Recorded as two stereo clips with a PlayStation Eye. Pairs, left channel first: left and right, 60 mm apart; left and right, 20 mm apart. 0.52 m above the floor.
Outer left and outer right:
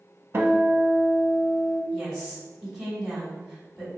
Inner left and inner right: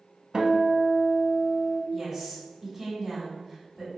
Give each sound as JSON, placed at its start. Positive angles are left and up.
{"t": 0.3, "sound": "a guitar", "side_deg": -45, "distance_m": 0.6}
{"t": 1.9, "sound": "a woman speaking", "side_deg": -5, "distance_m": 1.1}